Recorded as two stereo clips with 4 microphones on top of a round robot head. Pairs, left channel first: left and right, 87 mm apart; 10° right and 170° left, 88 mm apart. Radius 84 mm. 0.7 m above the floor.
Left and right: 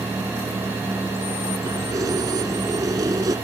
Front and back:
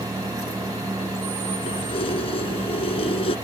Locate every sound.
1.7 s keys jangling: 35° right